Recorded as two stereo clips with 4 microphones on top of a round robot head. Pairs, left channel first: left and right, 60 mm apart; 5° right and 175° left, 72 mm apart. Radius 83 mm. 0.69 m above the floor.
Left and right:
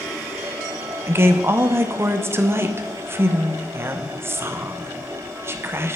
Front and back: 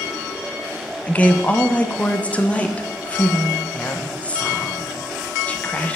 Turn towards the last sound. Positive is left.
turn(degrees=-70)